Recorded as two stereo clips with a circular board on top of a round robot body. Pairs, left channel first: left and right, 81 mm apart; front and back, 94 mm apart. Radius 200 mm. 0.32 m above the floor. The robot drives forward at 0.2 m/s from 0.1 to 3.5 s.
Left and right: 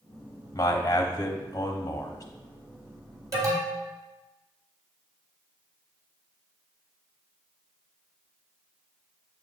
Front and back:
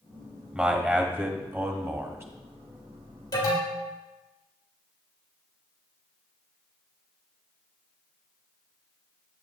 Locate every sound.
0.5 s a man speaking: 105° left, 1.2 m; by 2.2 s 125° left, 1.3 m
3.3 s an alarm: 45° right, 3 m